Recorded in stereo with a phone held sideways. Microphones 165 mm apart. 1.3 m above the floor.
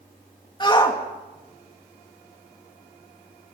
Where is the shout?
30° left (ahead or behind), 2.5 m.